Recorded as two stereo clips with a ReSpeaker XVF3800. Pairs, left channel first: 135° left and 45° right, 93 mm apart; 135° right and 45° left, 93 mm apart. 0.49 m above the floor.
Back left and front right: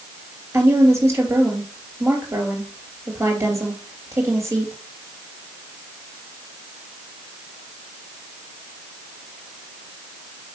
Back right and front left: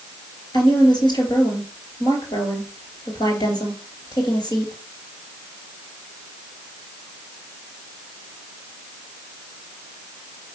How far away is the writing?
No writing in this recording.